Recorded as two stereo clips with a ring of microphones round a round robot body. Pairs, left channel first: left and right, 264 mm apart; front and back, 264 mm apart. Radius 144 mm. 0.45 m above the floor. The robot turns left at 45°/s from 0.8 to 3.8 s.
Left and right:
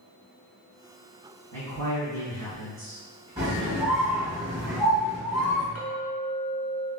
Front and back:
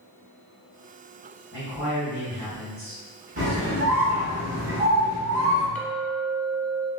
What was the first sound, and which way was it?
A man speaking, 90° right.